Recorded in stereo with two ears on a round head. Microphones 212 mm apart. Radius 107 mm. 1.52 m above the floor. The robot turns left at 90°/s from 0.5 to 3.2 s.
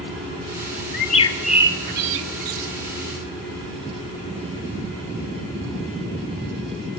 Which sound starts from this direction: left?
A bird, at 0.9 s.